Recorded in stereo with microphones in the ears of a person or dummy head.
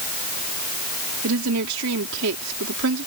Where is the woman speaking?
80° right.